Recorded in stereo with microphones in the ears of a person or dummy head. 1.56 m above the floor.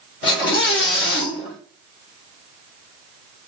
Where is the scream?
65° left (ahead or behind), 2 m.